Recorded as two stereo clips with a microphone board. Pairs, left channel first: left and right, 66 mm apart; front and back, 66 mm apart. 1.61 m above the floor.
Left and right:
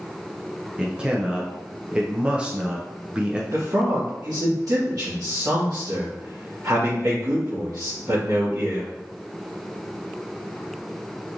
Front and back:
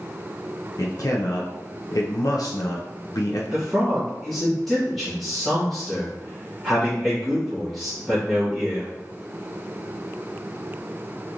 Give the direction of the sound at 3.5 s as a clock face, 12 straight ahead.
3 o'clock.